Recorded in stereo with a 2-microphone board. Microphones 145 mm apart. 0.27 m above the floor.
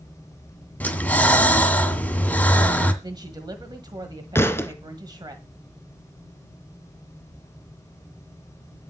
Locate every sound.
0.8 s breathing: 10° left (ahead or behind), 1.9 m
3.0 s a woman speaking: 30° right (ahead or behind), 1.5 m
4.3 s a thud: 20° left (ahead or behind), 0.9 m